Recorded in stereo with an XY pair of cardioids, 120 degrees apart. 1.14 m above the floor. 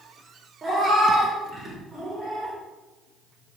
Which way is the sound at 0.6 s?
35° right.